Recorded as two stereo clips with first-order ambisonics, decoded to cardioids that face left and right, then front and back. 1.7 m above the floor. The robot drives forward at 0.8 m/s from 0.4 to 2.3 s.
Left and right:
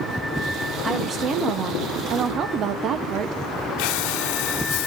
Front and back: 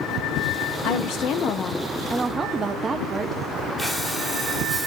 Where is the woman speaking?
20° right, 1.1 m; by 3.4 s 120° right, 0.7 m.